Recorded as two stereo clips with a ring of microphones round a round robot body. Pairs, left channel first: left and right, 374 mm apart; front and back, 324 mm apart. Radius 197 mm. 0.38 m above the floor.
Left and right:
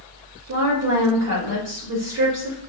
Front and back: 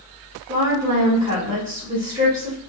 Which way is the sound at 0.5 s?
120° right.